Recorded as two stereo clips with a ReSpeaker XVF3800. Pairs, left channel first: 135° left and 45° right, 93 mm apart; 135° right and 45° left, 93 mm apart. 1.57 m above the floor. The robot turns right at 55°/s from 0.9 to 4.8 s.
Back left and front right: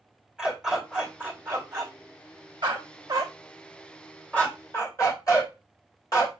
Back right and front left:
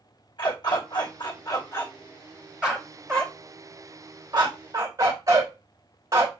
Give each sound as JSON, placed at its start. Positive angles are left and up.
{"t": 0.4, "sound": "a dog barking", "azimuth_deg": -125, "distance_m": 2.0}